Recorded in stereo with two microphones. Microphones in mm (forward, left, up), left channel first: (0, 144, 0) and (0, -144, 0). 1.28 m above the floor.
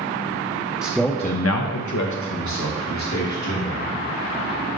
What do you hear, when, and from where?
0.8 s a man speaking: 10° right (ahead or behind), 0.8 m; by 3.9 s 60° left (ahead or behind), 3 m